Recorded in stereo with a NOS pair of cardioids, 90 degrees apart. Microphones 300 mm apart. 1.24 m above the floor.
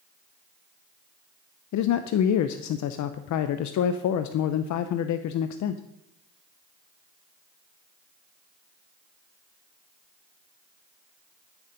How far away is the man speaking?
About 0.8 m.